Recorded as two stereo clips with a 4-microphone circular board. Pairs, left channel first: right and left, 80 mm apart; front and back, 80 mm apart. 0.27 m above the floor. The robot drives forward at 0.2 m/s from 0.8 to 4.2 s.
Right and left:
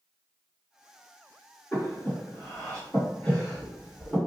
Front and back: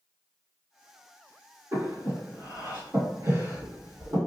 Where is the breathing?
160° right, 1.7 m; by 4.2 s 165° right, 2 m.